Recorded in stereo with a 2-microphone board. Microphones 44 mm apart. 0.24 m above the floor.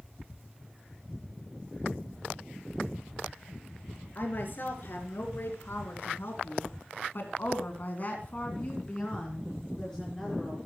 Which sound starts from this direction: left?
A woman speaking, at 4.2 s.